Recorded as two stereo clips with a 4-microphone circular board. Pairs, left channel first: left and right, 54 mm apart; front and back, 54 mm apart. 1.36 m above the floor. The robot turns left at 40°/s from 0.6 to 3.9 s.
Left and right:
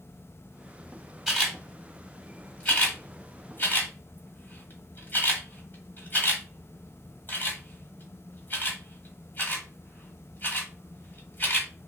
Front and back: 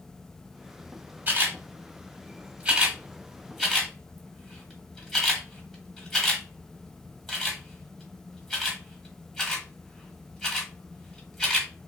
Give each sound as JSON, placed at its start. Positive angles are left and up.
{"t": 1.3, "sound": "a camera shutter", "azimuth_deg": -170, "distance_m": 1.5}